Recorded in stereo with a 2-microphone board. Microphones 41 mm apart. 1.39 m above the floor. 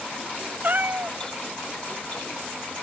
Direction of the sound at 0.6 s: 45° right (ahead or behind).